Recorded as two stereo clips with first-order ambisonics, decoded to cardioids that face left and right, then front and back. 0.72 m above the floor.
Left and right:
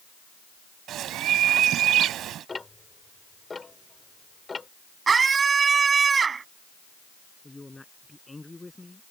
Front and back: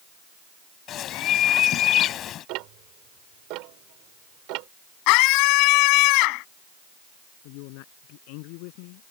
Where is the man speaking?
5° left.